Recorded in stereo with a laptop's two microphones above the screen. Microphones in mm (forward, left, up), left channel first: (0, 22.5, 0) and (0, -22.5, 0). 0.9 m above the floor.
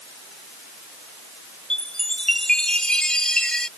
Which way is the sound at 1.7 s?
15° left (ahead or behind).